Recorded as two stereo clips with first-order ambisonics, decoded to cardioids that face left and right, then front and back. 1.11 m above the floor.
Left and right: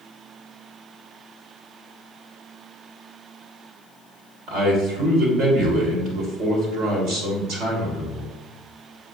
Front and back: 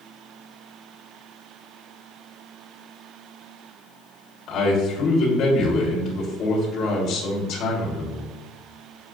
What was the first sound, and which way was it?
A man speaking, 50° right.